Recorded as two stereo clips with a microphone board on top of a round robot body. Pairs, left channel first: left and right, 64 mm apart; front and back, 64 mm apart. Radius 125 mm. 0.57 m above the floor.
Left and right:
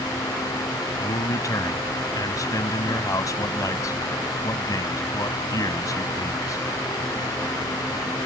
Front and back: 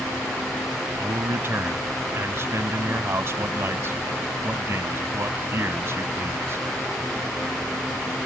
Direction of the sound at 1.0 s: 130° left.